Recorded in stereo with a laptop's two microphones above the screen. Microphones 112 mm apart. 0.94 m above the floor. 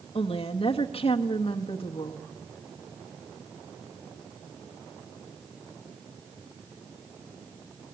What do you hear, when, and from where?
0.1 s a woman speaking: 65° left (ahead or behind), 1.3 m